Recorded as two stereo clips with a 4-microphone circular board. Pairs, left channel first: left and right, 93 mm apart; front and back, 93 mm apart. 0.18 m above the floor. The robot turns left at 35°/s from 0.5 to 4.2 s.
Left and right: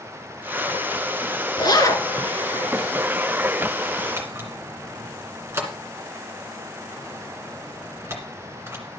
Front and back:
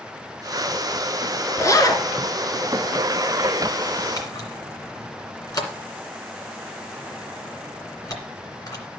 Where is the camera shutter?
35° right, 2 m.